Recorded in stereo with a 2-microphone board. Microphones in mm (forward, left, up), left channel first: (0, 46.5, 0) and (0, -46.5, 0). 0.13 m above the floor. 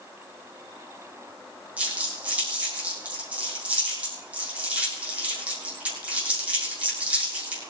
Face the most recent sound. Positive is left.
turn(degrees=-15)  # may be behind; listen again after turning